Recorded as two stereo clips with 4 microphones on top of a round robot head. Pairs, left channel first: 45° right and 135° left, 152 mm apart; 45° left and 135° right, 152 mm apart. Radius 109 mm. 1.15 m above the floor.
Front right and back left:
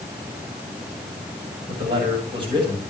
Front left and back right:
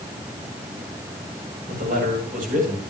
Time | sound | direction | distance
1.7 | a man speaking | 170° right | 9 m